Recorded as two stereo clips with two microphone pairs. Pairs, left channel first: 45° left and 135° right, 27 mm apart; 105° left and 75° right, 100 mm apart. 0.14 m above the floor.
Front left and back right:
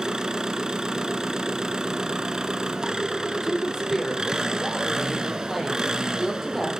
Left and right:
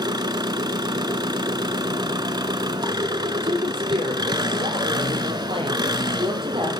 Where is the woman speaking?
45° right, 4.5 m.